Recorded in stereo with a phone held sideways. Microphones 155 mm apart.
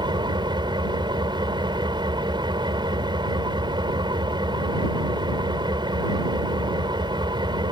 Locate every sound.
0.0 s an engine running: 30° right (ahead or behind)